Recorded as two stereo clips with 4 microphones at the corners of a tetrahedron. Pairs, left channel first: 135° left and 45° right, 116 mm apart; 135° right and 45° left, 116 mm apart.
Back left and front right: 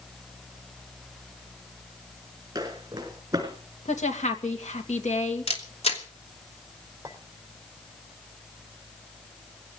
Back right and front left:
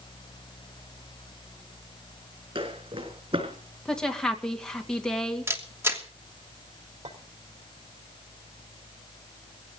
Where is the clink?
25° left, 4 m.